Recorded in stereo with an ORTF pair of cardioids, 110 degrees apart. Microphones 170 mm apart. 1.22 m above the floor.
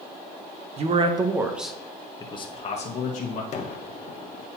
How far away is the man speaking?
About 0.9 m.